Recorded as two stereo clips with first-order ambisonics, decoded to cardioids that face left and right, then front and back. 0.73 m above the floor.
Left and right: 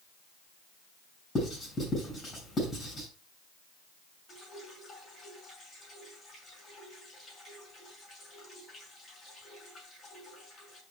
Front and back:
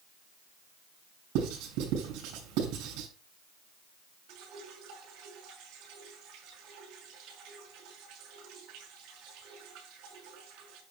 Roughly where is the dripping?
Behind.